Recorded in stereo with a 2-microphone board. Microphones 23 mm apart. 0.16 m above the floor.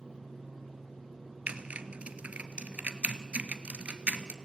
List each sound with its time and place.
1.5 s typing on a keyboard: 65° right (ahead or behind), 1.0 m